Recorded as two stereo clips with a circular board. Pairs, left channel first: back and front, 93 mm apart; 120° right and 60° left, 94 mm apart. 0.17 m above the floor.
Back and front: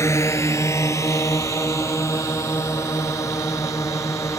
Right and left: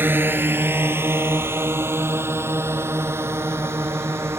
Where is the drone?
125° left.